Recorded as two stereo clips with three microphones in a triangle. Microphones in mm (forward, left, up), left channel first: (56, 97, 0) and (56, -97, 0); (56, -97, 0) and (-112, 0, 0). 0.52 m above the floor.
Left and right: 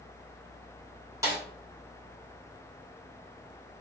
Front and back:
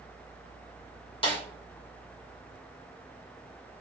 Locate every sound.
1.2 s a snare drum: 35° right, 1.1 m